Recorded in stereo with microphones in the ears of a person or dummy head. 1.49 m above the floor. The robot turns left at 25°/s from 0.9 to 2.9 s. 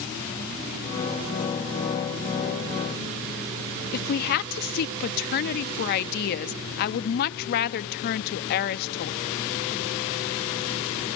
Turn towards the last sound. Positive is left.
turn(degrees=50)  # may be behind; listen again after turning